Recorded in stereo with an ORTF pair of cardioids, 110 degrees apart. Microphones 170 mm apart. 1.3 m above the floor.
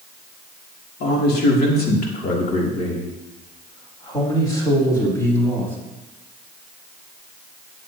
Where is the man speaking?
70° left, 3 m; by 5.8 s 10° left, 5 m.